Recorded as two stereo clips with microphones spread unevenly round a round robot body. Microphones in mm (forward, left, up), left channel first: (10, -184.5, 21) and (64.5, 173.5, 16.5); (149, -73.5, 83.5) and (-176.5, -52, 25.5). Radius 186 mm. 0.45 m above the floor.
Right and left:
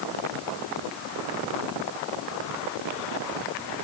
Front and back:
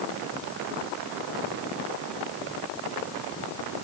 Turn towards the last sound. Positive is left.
No sound to turn to.